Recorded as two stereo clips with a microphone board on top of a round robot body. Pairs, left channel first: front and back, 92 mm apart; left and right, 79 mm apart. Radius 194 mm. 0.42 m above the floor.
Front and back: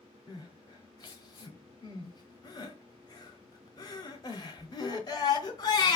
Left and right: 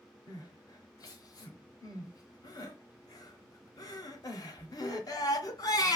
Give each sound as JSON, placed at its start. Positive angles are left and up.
{"t": 0.3, "sound": "crying", "azimuth_deg": 45, "distance_m": 1.1}